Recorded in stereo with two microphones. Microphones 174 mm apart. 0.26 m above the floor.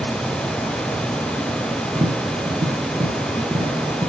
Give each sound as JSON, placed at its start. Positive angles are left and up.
{"t": 1.9, "sound": "tapping", "side_deg": -15, "distance_m": 2.5}